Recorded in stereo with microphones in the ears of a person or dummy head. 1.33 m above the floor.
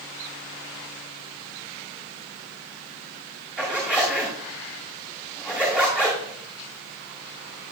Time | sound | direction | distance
3.6 | a zipper | 5° right (ahead or behind) | 2 m